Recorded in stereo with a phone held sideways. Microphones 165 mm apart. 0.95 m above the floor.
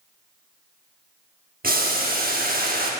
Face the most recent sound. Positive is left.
turn(degrees=-65)  # may be behind; listen again after turning